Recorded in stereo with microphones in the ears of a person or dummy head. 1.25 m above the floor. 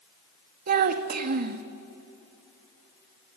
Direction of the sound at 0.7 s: 45° right (ahead or behind).